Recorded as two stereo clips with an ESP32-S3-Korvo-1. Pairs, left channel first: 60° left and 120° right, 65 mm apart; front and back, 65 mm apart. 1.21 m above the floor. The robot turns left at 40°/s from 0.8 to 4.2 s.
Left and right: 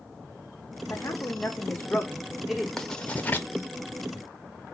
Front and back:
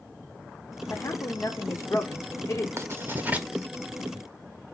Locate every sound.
0.9 s a woman speaking: 35° left, 0.6 m; by 2.7 s 40° right, 0.6 m
2.8 s writing: 145° left, 0.6 m; by 3.5 s 115° left, 0.6 m